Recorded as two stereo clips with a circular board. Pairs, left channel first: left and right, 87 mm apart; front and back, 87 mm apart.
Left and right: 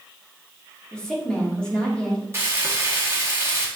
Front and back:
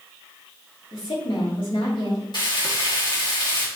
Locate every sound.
0.9 s a woman speaking: 10° left, 2.5 m
2.3 s frying: 30° right, 1.7 m